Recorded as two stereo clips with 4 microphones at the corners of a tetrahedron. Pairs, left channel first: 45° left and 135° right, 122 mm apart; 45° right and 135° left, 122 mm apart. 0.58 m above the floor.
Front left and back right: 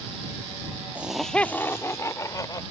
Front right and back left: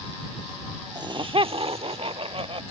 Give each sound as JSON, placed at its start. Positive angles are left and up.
{"t": 0.9, "sound": "laughter", "azimuth_deg": 155}